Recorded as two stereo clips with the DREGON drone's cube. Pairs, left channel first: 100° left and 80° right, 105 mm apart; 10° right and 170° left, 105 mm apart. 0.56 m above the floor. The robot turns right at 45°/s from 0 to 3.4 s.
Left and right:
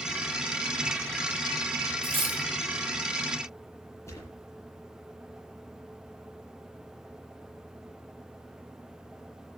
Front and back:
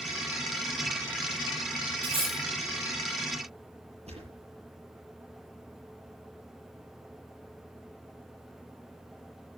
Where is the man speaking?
I don't hear a man speaking.